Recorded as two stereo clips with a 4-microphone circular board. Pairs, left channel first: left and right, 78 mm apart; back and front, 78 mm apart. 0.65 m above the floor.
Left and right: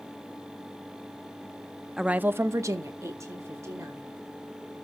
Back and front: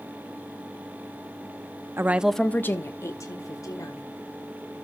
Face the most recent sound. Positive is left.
turn(degrees=-140)